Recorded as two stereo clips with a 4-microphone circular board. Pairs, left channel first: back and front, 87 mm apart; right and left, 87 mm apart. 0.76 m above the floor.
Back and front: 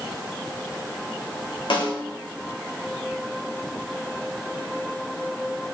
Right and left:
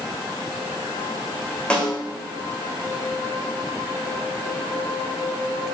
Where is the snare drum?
165° right, 2.5 m.